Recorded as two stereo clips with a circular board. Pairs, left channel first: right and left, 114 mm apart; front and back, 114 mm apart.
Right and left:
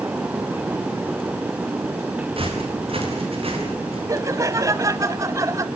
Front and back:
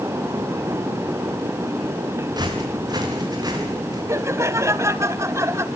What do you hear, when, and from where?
2.4 s footsteps: 125° left, 7.5 m
4.1 s laughter: 135° left, 1.4 m